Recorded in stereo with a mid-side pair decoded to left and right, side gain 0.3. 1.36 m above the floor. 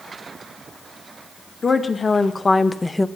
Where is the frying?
No frying in this recording.